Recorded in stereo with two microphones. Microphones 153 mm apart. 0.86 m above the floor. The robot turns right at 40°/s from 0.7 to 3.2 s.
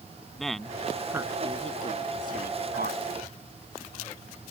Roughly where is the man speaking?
Centre.